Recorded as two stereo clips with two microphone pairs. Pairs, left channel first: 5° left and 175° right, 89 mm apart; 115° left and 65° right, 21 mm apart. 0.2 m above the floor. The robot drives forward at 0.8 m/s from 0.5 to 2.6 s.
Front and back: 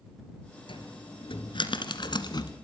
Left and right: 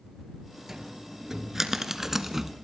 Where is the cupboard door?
Straight ahead, 2.5 m; by 2.5 s 5° left, 1.2 m.